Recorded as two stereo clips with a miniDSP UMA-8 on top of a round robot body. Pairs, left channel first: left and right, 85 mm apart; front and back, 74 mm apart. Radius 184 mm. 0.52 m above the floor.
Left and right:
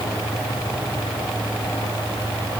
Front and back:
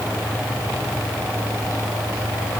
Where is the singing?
No singing in this recording.